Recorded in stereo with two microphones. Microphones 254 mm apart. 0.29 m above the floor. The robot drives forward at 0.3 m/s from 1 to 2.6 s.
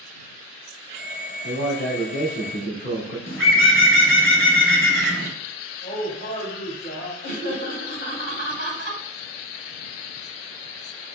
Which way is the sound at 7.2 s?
50° left (ahead or behind).